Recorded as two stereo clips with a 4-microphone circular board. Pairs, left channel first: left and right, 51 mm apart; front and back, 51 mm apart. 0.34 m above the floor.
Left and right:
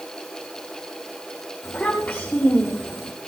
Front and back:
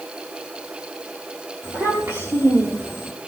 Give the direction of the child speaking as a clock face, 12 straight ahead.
7 o'clock.